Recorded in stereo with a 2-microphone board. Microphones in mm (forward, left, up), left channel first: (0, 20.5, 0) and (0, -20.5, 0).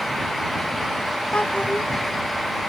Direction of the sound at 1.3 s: 30° left (ahead or behind).